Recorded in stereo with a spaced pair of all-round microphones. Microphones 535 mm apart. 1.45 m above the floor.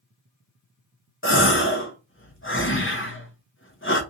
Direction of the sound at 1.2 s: 25° left (ahead or behind).